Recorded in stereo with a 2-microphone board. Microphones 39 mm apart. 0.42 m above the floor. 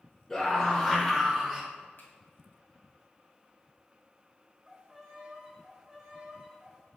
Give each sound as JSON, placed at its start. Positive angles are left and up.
{"t": 0.3, "sound": "a scream", "side_deg": 10, "distance_m": 1.9}
{"t": 2.0, "sound": "a finger snap", "side_deg": 60, "distance_m": 2.0}
{"t": 4.7, "sound": "a violin", "side_deg": -10, "distance_m": 1.6}